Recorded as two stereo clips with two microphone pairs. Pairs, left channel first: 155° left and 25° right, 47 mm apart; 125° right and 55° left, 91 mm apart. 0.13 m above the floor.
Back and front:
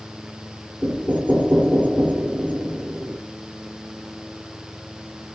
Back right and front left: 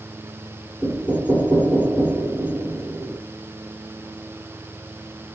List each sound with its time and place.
0.8 s knocking: 10° right, 1.6 m